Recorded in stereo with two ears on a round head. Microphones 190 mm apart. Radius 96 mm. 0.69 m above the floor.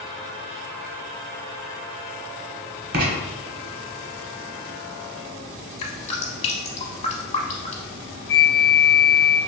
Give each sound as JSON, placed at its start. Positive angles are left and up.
{"t": 2.9, "sound": "writing", "side_deg": -50, "distance_m": 0.9}
{"t": 5.8, "sound": "dripping", "side_deg": 30, "distance_m": 0.9}
{"t": 8.3, "sound": "a flute", "side_deg": 50, "distance_m": 0.8}